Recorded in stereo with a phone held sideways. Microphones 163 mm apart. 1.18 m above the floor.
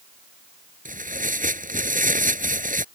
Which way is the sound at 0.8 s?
55° right (ahead or behind).